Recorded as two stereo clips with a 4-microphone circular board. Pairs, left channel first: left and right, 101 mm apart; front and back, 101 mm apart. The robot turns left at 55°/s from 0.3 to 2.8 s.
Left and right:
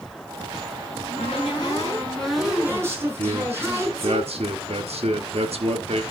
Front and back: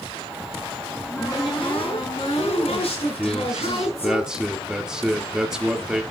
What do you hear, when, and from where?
0.9 s a cupboard door: 80° left, 6 m; by 4.2 s 25° right, 6 m
3.2 s a man speaking: 95° right, 1.5 m